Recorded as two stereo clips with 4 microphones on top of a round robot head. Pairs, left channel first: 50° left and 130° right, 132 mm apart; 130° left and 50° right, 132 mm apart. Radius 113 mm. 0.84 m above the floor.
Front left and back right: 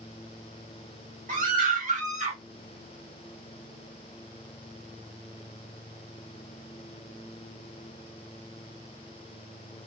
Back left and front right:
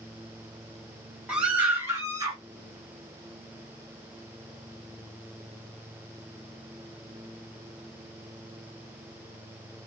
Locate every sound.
1.3 s a scream: 135° right, 1.7 m; by 2.4 s 105° right, 1.2 m